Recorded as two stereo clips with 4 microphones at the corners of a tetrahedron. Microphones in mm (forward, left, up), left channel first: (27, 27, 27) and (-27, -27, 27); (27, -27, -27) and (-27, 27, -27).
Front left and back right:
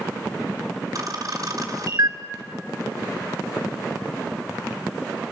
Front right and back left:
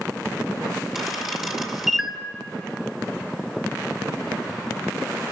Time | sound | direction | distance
0.9 | a camera shutter | 145° right | 2.0 m